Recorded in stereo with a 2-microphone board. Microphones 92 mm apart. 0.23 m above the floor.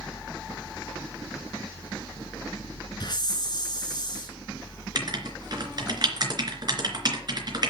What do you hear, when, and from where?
3.0 s a hiss: 50° left (ahead or behind), 3 m
5.0 s writing: 50° right (ahead or behind), 3 m